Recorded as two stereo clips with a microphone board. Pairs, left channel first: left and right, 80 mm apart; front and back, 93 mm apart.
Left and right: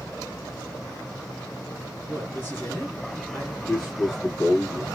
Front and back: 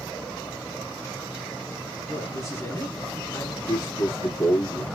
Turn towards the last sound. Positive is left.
turn(degrees=20)